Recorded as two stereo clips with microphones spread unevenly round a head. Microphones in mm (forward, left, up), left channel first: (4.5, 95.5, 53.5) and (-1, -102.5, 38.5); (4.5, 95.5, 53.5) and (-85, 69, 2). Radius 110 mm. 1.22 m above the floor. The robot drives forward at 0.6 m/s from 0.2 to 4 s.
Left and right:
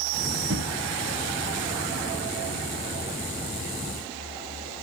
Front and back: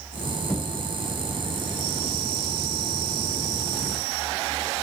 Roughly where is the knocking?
Right.